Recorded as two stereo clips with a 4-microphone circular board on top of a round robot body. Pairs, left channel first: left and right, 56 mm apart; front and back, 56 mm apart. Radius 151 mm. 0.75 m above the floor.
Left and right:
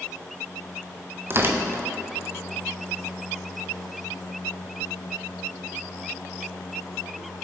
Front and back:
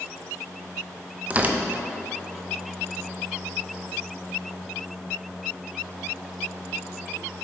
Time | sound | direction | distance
1.3 | tearing paper | 120° right | 0.7 m